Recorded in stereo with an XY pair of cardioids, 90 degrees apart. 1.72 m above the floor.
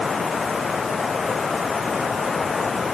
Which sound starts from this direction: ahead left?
Running water, at 0.0 s.